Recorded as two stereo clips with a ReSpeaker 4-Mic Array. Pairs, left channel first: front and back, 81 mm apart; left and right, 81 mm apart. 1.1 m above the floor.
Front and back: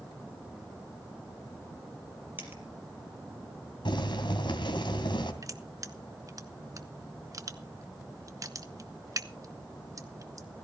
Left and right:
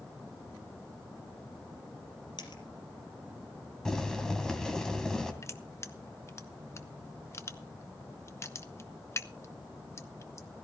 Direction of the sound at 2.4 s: 115° left.